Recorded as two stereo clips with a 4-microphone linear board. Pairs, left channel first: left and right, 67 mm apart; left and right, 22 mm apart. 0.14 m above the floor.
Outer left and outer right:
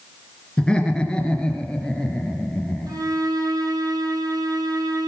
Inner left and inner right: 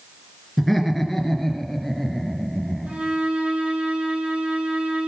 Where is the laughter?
10° left (ahead or behind), 2 m; by 3.0 s 15° left (ahead or behind), 3.5 m.